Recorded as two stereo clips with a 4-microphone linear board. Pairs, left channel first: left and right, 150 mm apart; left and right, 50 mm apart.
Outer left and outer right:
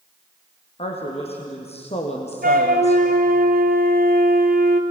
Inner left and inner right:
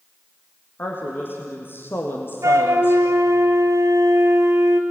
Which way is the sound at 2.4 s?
80° right.